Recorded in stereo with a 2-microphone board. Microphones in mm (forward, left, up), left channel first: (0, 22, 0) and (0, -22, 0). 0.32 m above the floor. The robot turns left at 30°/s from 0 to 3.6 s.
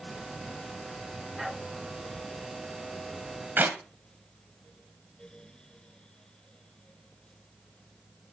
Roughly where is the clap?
Right.